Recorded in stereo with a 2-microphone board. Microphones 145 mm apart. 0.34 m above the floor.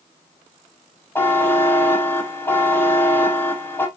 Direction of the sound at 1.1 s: 15° left (ahead or behind).